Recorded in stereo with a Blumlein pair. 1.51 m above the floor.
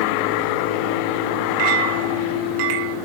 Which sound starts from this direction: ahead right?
A clink, at 1.6 s.